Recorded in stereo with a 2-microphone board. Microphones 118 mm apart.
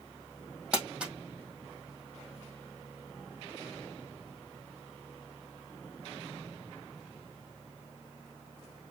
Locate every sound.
0.7 s crumpling: 5° right (ahead or behind), 3 m